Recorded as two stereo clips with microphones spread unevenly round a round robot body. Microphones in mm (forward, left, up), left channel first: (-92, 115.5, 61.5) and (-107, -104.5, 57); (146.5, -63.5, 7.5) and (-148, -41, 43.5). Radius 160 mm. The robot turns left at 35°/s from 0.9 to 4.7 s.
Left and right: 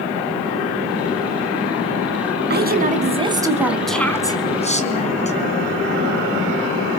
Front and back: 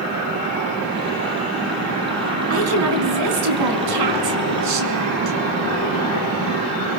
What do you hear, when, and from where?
2.5 s a woman speaking: 135° right, 4.5 m; by 5.4 s 145° left, 4.5 m